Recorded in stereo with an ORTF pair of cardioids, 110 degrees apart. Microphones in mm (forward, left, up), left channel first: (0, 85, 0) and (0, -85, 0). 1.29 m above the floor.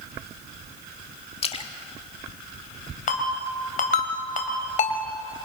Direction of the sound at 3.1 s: 50° left.